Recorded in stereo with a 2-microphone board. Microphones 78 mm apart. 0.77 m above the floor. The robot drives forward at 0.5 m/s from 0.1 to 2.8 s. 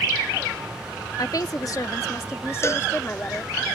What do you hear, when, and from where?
1.2 s a woman speaking: 55° left (ahead or behind); by 3.6 s 30° left (ahead or behind)
2.6 s a cowbell: 35° left (ahead or behind)